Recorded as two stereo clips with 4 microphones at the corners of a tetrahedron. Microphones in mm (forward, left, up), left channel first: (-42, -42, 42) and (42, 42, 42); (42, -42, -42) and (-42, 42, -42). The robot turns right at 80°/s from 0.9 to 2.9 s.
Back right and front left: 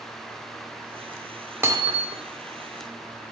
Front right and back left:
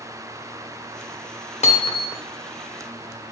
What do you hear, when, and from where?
1.6 s hammering: 25° right, 1.3 m; by 2.2 s 25° left, 1.3 m